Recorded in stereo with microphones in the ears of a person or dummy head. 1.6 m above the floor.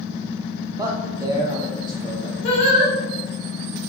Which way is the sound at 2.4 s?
35° left (ahead or behind).